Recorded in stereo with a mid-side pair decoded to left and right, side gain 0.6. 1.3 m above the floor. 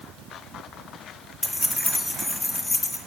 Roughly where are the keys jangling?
Ahead.